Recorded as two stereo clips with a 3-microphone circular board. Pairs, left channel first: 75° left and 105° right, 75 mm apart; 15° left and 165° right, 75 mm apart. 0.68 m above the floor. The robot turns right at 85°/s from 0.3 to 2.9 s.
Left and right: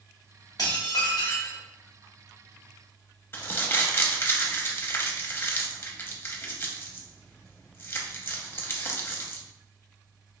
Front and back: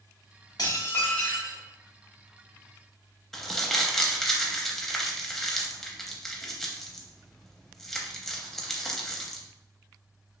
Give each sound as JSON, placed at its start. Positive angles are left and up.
{"t": 0.6, "sound": "dishes clattering", "azimuth_deg": 45, "distance_m": 0.7}
{"t": 3.3, "sound": "crumpling", "azimuth_deg": 95, "distance_m": 0.5}